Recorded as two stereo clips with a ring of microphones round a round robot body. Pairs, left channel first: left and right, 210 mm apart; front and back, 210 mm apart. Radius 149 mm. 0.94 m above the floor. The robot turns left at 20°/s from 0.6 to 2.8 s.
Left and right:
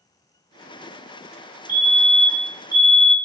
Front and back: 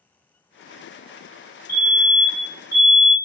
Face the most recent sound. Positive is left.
turn(degrees=-40)